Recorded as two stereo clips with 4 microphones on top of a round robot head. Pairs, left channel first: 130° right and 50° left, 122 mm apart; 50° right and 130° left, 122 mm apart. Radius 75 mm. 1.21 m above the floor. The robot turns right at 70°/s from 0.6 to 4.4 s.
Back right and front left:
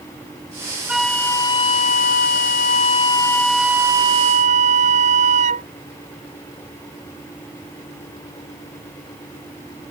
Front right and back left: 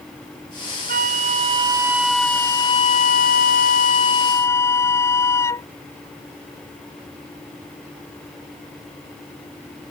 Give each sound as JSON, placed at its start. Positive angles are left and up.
{"t": 0.9, "sound": "a flute", "azimuth_deg": 135}